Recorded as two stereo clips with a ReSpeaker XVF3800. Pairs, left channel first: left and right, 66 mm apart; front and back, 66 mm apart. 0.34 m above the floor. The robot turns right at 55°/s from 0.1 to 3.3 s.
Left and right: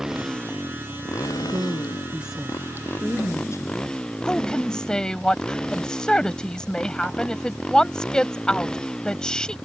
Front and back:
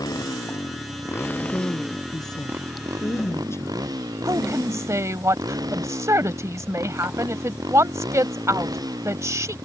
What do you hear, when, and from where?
0.0 s a motorcycle: 10° right; by 9.7 s 170° left
1.4 s a woman speaking: 60° right; by 4.1 s 45° left
4.2 s a woman speaking: 165° left